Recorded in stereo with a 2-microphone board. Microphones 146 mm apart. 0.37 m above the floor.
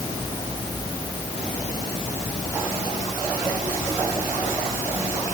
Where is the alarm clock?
I don't hear an alarm clock.